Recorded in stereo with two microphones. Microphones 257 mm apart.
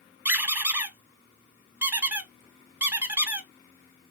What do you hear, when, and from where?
0.2 s a squeak: 10° right (ahead or behind), 0.6 m